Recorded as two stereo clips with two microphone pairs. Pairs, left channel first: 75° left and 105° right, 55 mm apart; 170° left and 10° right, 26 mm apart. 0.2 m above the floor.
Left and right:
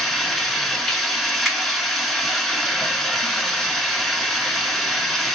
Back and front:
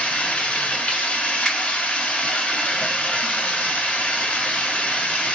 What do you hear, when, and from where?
0.0 s running water: 160° left, 0.8 m
1.4 s a finger snap: 160° left, 1.0 m